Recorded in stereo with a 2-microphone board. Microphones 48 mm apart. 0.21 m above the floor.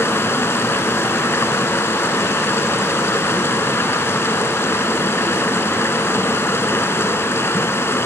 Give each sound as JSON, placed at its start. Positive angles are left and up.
{"t": 0.0, "sound": "running water", "side_deg": 55, "distance_m": 0.8}